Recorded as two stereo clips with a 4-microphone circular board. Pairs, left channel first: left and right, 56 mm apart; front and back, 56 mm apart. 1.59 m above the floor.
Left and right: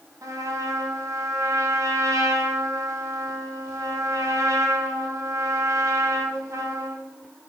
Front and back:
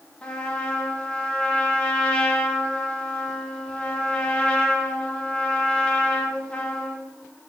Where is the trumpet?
70° right, 1.1 m.